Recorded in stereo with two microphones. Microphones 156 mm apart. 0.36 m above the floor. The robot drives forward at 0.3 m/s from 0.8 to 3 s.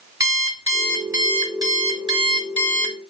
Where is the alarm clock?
25° right (ahead or behind), 1.5 m; by 3.0 s 35° right (ahead or behind), 1.0 m.